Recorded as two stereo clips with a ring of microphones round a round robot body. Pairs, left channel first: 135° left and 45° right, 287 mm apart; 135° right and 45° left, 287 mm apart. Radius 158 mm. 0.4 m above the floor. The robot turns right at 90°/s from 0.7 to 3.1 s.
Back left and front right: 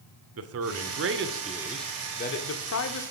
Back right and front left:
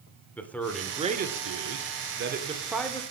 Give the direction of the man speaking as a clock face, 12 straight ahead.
2 o'clock.